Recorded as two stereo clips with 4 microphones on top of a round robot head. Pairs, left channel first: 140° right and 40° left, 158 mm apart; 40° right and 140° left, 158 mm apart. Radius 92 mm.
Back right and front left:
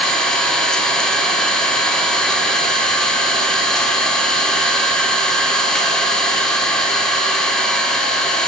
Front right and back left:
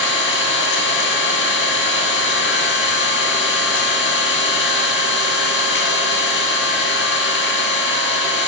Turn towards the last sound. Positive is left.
turn(degrees=-50)